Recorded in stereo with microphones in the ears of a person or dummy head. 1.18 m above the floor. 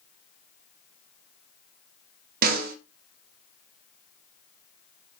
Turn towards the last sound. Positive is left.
turn(degrees=-50)  # may be behind; listen again after turning